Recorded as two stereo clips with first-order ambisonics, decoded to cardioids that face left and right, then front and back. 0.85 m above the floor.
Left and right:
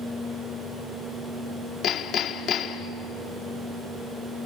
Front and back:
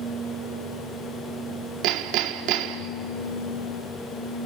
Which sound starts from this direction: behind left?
Hammering, at 1.8 s.